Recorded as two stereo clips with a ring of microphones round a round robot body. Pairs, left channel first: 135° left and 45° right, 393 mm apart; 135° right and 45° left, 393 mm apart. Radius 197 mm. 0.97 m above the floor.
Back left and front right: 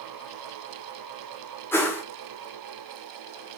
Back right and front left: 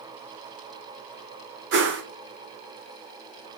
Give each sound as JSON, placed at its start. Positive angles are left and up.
{"t": 1.7, "sound": "a whoosh", "azimuth_deg": 55, "distance_m": 0.7}